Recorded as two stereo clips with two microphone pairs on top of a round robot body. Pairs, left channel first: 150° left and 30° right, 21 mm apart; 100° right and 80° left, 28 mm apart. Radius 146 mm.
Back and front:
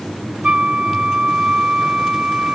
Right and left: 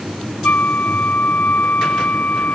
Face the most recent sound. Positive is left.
turn(degrees=-75)